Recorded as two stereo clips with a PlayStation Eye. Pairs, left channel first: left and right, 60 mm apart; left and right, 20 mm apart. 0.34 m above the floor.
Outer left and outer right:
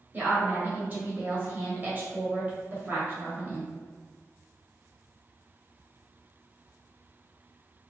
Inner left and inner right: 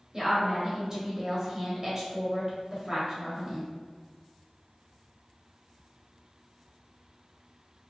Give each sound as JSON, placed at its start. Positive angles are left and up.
{"t": 0.1, "sound": "a woman speaking", "side_deg": -30, "distance_m": 1.6}